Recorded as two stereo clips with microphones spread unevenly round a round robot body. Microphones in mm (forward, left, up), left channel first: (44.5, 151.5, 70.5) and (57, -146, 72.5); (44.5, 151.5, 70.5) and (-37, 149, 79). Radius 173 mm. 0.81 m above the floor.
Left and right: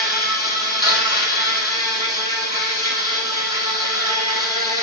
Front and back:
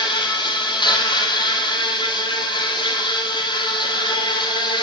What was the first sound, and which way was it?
An insect, 30° left.